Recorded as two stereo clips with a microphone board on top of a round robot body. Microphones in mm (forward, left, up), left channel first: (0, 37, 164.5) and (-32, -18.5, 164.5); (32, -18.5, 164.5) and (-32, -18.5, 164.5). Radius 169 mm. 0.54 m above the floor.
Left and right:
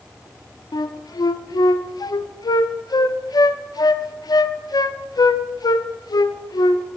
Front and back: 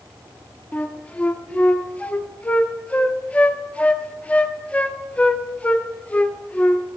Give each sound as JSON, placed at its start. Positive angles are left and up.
{"t": 0.7, "sound": "a flute", "azimuth_deg": 70, "distance_m": 0.7}